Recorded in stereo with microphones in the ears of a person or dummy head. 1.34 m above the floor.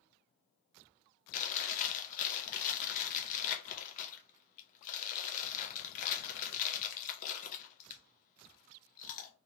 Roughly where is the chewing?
Left.